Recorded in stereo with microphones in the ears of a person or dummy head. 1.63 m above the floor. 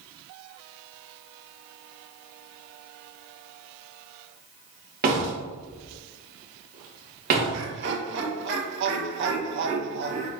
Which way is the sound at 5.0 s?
50° right (ahead or behind).